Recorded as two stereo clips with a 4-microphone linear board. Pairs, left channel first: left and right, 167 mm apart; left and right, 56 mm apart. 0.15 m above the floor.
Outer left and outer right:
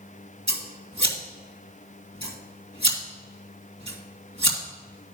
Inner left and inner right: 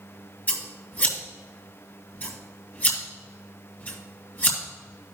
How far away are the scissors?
About 2.5 m.